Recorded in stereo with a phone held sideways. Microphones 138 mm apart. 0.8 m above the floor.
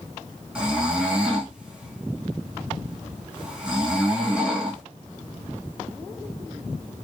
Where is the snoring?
5° right (ahead or behind), 0.9 m.